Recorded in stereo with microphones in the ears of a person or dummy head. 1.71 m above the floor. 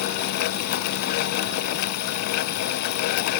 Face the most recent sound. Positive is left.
No sound to turn to.